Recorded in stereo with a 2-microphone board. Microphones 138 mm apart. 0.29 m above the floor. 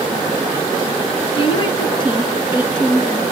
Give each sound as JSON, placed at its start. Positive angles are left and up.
{"t": 1.4, "sound": "a woman speaking", "side_deg": 40, "distance_m": 3.0}